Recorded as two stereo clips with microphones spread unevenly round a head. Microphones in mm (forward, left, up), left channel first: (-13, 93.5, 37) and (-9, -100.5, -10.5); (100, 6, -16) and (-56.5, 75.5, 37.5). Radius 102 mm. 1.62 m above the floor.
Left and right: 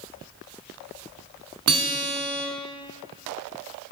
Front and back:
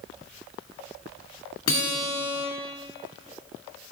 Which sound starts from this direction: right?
A guitar, at 1.7 s.